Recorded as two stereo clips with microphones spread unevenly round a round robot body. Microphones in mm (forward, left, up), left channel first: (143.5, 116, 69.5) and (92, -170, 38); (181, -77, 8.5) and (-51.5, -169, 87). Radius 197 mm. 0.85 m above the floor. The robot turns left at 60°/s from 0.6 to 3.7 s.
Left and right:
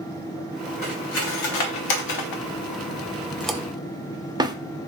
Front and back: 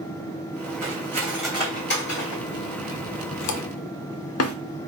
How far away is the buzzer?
I don't hear a buzzer.